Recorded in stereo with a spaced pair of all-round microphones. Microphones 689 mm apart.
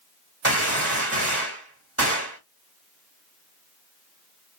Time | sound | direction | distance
0.4 | a gunshot | 20° right (ahead or behind) | 1.9 m